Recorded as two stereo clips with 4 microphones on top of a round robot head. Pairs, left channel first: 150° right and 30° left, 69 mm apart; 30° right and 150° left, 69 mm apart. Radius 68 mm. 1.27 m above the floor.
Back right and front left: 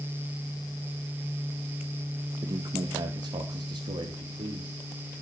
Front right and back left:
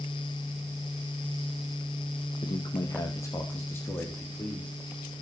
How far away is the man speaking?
About 1.7 m.